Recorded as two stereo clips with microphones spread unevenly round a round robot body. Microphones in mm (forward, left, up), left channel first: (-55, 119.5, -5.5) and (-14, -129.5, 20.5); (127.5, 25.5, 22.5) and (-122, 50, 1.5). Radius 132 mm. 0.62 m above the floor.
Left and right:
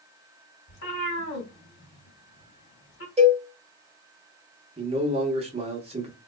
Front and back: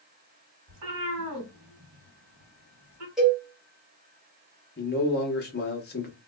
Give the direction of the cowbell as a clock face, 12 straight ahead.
4 o'clock.